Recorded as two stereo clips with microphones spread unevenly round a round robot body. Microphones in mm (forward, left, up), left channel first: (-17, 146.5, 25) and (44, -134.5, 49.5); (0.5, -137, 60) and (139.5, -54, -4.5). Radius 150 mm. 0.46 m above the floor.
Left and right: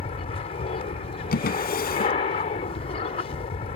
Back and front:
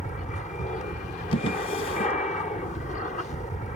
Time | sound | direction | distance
0.0 | an aircraft | 155° left | ?
1.3 | a drawer | 165° left | ?